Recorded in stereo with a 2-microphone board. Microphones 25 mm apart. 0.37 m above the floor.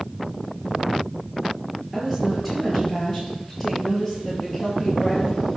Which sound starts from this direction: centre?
A woman speaking, at 1.9 s.